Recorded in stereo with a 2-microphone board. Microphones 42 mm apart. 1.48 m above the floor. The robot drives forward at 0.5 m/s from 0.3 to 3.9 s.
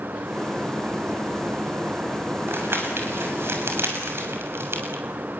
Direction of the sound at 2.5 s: 75° right (ahead or behind).